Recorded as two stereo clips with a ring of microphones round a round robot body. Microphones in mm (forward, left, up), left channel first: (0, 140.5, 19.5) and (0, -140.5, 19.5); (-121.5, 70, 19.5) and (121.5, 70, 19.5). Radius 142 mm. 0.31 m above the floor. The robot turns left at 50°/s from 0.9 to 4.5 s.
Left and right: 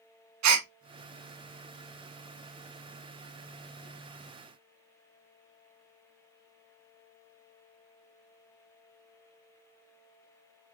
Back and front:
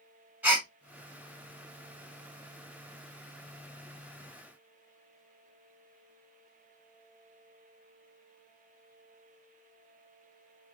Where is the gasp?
85° right, 0.7 m.